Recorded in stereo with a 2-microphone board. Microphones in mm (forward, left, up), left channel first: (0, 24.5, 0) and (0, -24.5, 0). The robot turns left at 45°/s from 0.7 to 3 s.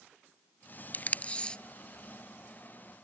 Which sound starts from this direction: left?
Tape being pulled, at 0.9 s.